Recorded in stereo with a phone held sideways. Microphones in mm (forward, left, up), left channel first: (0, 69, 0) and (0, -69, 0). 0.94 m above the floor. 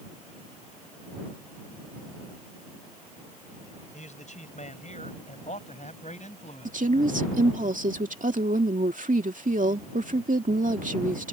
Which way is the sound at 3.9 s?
60° left (ahead or behind).